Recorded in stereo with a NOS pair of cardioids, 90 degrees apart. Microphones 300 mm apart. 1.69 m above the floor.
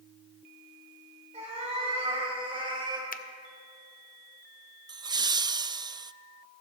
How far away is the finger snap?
About 0.7 m.